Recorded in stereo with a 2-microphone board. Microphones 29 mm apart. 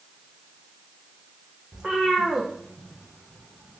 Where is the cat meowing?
15° right (ahead or behind), 2.5 m; by 3.8 s centre (ahead or behind), 3.5 m.